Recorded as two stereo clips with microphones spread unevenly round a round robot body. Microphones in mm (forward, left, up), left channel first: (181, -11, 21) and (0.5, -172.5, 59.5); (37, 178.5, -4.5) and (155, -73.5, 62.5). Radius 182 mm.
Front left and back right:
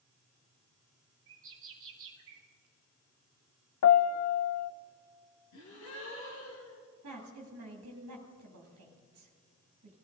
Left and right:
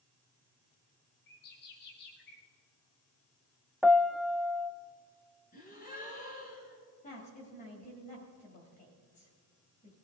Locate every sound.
1.3 s a bird: 170° left, 1.1 m
3.8 s a piano: 20° left, 0.6 m
5.5 s a gasp: 55° left, 4 m
7.0 s a woman speaking: straight behind, 2.5 m